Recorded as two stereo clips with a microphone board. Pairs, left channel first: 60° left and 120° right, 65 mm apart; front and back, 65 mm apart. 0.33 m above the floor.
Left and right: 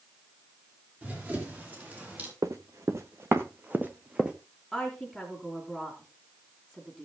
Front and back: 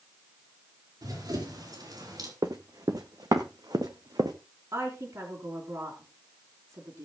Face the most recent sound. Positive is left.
turn(degrees=160)